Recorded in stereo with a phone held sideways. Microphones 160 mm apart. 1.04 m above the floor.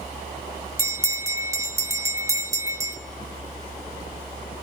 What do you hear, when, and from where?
0.8 s a bell: 20° right (ahead or behind), 0.8 m